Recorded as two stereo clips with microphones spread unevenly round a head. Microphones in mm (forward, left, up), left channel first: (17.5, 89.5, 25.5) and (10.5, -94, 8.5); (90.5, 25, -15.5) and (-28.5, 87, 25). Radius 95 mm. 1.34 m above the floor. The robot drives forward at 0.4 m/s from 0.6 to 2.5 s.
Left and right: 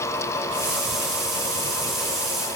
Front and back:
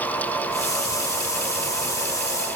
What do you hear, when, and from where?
Only background noise.